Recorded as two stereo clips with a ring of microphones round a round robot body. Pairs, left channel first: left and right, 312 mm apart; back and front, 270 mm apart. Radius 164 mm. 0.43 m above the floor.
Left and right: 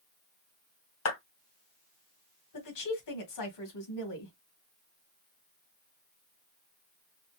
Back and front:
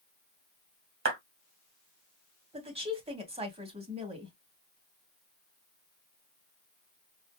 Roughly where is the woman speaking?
Left.